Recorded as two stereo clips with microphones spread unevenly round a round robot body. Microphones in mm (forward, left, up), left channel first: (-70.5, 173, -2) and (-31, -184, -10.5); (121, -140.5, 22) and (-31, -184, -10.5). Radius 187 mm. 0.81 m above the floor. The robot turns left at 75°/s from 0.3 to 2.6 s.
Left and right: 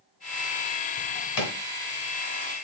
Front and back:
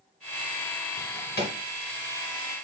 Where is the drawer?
80° left, 2.0 m; by 1.6 s 40° left, 2.0 m.